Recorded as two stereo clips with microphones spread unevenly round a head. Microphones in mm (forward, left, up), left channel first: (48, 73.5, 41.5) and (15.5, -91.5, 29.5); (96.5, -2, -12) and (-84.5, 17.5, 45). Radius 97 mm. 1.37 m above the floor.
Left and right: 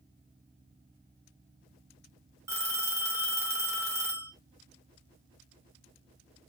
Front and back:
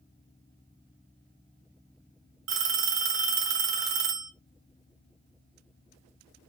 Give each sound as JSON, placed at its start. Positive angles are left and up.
{"t": 2.5, "sound": "a phone ringing", "azimuth_deg": 180, "distance_m": 2.5}